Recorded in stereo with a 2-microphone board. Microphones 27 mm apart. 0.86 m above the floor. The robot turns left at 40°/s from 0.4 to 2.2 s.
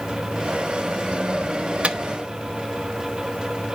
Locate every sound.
1.8 s a microwave: 50° right (ahead or behind), 0.8 m; by 2.0 s 45° right (ahead or behind), 0.8 m